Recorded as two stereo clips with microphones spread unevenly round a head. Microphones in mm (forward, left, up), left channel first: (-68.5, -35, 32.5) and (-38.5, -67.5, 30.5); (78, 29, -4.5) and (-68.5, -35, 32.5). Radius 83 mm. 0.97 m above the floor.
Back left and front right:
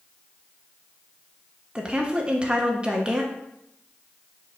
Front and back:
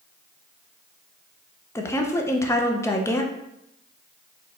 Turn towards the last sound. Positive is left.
turn(degrees=-5)